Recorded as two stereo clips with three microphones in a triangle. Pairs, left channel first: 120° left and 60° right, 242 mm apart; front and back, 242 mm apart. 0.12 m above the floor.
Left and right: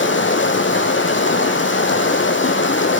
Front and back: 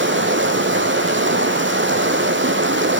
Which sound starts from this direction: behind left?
Running water, at 0.0 s.